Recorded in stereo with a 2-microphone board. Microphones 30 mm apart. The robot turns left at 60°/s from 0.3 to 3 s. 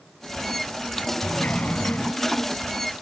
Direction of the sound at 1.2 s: 115° left.